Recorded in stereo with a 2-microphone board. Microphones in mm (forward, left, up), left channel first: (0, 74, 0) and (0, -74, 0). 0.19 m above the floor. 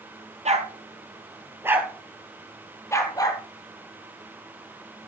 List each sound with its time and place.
0.5 s a dog barking: 50° right (ahead or behind), 1.6 m; by 3.4 s 25° left (ahead or behind), 2.0 m